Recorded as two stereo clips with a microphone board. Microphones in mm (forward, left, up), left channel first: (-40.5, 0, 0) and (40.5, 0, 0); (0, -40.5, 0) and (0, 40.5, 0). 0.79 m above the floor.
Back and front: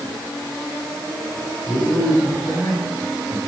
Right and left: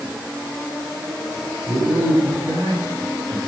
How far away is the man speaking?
About 6.5 m.